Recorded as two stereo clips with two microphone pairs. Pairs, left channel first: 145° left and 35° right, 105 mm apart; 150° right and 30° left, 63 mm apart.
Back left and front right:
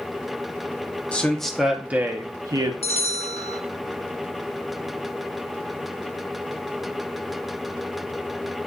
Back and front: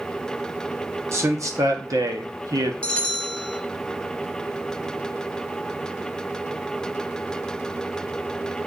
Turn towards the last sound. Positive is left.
turn(degrees=135)